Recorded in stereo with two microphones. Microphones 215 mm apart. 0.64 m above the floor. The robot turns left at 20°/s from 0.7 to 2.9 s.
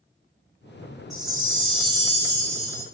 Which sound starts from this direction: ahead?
A chime, at 1.1 s.